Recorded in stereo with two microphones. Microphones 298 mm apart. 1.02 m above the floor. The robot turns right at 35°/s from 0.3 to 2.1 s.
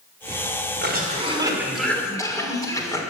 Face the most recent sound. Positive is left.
turn(degrees=10)